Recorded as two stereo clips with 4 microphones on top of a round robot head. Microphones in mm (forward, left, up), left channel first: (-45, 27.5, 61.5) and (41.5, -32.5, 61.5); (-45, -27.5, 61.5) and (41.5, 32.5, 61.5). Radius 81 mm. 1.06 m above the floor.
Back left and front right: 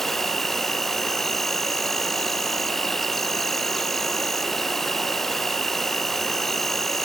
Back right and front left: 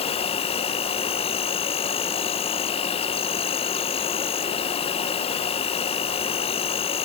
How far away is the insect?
About 0.9 m.